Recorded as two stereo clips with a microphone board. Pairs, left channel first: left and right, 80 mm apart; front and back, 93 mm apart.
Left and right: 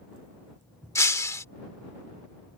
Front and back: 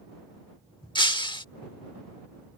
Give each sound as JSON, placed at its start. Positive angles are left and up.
{"t": 0.9, "sound": "breaking glass", "azimuth_deg": 35}